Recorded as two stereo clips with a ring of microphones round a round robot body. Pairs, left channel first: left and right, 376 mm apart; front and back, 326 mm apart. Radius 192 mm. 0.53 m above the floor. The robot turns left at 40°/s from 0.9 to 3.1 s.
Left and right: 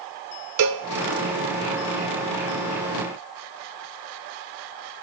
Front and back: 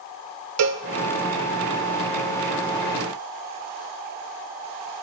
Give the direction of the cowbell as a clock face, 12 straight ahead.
5 o'clock.